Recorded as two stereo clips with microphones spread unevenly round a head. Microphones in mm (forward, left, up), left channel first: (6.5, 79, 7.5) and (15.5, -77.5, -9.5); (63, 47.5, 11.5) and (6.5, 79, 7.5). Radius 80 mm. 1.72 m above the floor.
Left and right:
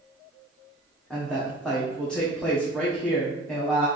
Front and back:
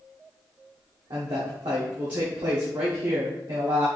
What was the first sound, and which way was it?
A woman speaking, 175° left.